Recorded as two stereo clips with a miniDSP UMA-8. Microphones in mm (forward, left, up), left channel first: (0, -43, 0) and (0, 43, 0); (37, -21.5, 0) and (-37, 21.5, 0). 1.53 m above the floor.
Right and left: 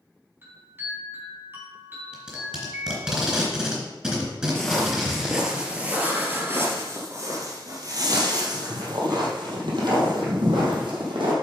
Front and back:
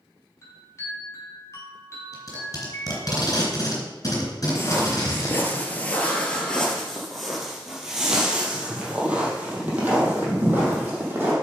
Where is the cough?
No cough in this recording.